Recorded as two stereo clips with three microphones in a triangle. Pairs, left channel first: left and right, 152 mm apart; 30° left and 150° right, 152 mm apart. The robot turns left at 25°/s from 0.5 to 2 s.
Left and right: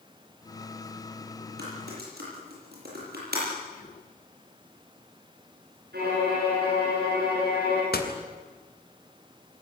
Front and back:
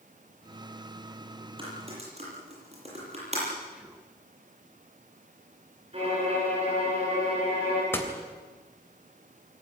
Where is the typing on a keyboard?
90° right, 9.5 m; by 3.5 s 100° right, 9.5 m.